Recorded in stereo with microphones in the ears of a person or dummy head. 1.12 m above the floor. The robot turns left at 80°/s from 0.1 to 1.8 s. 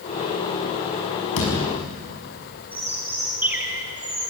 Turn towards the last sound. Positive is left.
turn(degrees=-10)  # may be behind; listen again after turning